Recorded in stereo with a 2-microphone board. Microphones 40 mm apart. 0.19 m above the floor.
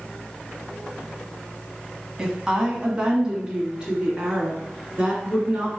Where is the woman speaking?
15° right (ahead or behind), 1.2 m; by 5.8 s 20° right (ahead or behind), 2.5 m.